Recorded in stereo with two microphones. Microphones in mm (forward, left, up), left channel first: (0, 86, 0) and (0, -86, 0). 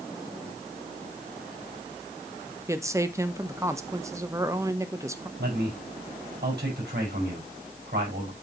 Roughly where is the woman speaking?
Centre.